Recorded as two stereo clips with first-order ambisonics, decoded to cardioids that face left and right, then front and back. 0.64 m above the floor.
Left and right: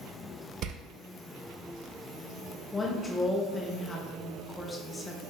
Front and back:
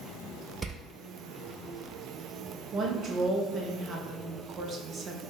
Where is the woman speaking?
155° left, 0.5 m.